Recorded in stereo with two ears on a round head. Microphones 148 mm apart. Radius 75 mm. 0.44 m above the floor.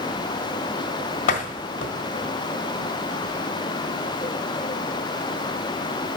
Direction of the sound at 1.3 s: 55° left (ahead or behind).